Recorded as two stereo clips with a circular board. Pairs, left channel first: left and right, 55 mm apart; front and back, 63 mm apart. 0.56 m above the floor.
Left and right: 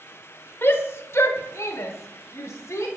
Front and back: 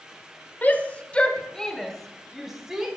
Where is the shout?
55° left, 1.7 m; by 2.9 s 105° left, 2 m.